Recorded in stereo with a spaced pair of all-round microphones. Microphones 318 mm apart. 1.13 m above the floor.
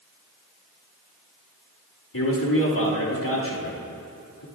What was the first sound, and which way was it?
A man speaking, 80° left.